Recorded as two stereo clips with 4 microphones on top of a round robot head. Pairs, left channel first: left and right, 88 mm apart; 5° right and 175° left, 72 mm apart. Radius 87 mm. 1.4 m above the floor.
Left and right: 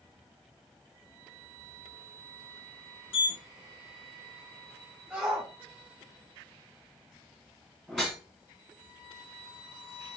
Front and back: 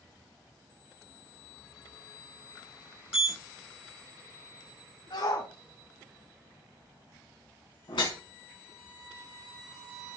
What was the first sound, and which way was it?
A sliding door, 95° left.